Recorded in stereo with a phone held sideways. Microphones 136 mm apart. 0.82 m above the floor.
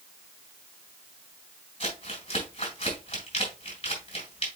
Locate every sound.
1.8 s crumpling: 45° left (ahead or behind), 4 m